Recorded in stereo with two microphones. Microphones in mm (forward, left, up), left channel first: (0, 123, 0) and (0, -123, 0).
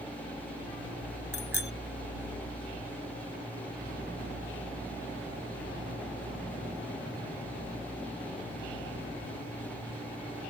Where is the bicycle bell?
65° right (ahead or behind).